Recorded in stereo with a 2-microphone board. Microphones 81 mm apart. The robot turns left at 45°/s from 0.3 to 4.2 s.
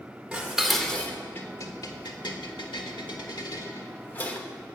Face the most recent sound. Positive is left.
turn(degrees=20)  # may be behind; listen again after turning